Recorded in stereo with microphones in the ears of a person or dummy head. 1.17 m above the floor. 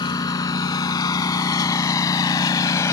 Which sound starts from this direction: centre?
A lawn mower, at 0.0 s.